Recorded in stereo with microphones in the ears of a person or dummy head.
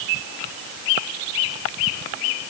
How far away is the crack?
No crack in this recording.